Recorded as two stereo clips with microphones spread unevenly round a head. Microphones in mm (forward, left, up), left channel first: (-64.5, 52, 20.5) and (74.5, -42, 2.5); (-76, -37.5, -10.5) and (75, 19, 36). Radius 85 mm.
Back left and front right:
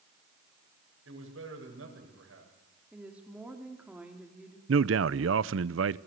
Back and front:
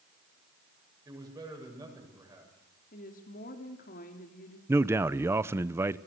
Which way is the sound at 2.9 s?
120° right.